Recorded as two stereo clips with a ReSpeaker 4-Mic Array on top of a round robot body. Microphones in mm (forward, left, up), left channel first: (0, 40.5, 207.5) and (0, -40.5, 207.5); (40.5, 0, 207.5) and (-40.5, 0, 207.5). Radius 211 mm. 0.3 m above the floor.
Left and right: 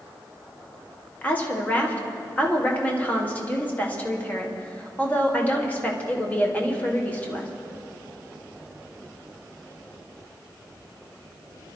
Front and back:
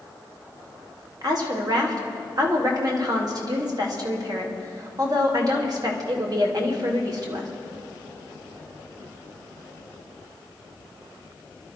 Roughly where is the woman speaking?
Behind.